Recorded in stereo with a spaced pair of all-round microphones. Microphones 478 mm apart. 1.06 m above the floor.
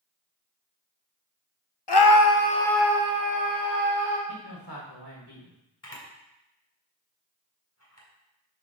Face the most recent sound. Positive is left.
turn(degrees=30)  # may be behind; listen again after turning